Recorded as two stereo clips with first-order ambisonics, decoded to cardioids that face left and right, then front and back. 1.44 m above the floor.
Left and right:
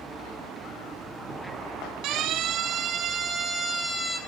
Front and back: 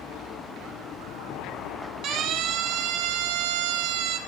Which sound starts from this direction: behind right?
A siren, at 2.0 s.